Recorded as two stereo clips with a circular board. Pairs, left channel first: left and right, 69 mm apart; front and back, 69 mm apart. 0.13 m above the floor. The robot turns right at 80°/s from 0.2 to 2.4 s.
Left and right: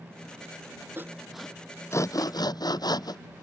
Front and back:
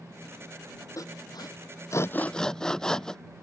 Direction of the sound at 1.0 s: 35° right.